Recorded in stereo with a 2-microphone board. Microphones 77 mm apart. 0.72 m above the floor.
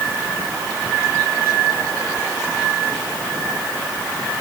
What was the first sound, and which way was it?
Only background noise.